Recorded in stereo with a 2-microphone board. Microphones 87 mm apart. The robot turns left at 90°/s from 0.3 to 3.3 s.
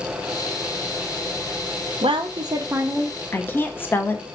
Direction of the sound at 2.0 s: 90° right.